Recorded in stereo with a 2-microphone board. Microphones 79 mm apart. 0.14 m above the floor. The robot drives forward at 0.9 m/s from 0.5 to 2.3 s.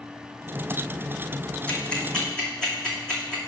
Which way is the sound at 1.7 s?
15° left (ahead or behind).